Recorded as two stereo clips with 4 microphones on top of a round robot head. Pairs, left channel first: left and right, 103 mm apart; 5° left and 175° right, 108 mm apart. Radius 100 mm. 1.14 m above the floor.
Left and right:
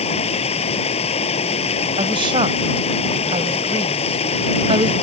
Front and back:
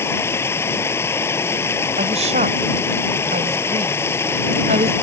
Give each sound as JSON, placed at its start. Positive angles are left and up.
{"t": 0.0, "sound": "running water", "azimuth_deg": 70}
{"t": 2.0, "sound": "a woman speaking", "azimuth_deg": -145}